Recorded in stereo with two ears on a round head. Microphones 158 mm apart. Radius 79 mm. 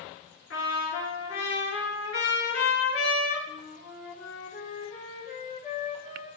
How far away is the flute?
About 3.5 m.